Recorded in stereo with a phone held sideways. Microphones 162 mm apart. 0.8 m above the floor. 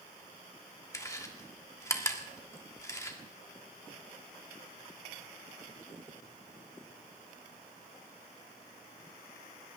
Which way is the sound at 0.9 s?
20° left (ahead or behind).